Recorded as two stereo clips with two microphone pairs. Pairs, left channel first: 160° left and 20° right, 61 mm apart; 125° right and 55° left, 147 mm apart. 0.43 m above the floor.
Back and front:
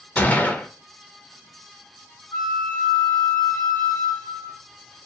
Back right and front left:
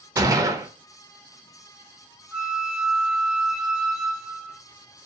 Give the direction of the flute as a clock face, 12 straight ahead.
7 o'clock.